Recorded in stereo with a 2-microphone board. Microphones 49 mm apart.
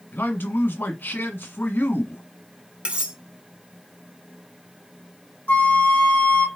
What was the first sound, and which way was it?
A man speaking, 45° left (ahead or behind).